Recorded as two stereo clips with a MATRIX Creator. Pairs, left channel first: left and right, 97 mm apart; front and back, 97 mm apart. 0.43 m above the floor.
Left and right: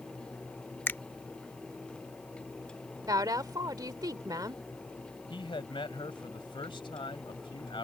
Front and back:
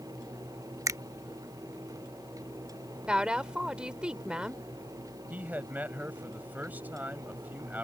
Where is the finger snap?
145° left.